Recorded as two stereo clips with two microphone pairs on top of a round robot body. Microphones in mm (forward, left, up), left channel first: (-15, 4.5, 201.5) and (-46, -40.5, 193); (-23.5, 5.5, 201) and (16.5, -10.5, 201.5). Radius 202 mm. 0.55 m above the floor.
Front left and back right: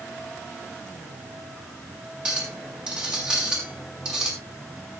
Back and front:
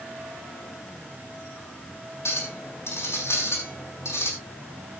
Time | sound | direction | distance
2.2 | a clink | 165° left | 6 m